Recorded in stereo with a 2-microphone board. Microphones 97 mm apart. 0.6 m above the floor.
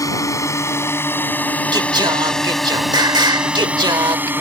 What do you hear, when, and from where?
0.0 s a drone: 35° left (ahead or behind); by 4.4 s 20° right (ahead or behind)
1.7 s singing: 50° right (ahead or behind)